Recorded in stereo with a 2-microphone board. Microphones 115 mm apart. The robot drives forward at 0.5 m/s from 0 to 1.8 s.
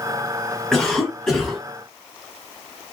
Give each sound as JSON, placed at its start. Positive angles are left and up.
{"t": 0.7, "sound": "a cough", "side_deg": 5, "distance_m": 1.1}